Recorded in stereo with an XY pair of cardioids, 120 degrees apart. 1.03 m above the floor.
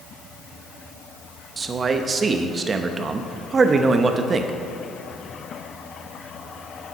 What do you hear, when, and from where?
1.6 s a man speaking: 30° right, 0.8 m